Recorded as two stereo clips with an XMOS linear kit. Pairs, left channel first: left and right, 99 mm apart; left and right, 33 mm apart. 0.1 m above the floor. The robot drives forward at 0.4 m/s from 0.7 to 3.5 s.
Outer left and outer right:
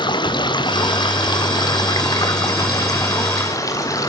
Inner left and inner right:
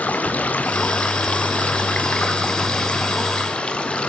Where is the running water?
50° left (ahead or behind), 2.5 m; by 4.1 s 35° left (ahead or behind), 3 m.